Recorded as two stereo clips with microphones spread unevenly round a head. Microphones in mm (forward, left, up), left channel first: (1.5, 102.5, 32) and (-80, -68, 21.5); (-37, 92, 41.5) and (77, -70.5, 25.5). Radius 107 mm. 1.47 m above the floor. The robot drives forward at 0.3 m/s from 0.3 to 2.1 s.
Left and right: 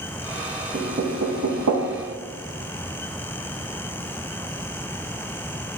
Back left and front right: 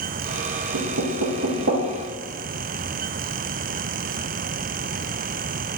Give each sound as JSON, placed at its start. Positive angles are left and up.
{"t": 0.7, "sound": "knocking", "azimuth_deg": -60, "distance_m": 0.5}